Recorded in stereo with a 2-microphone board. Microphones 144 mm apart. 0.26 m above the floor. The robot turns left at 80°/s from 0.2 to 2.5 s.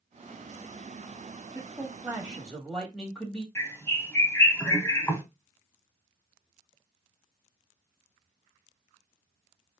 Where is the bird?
15° left (ahead or behind), 0.8 m.